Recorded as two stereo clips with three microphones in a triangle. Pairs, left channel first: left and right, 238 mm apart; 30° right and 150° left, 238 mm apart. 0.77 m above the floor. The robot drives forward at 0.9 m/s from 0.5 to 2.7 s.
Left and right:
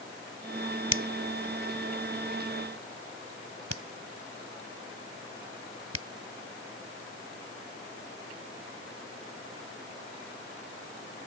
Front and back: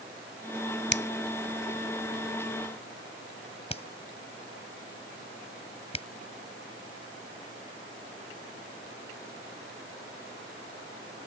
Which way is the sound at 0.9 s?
70° right.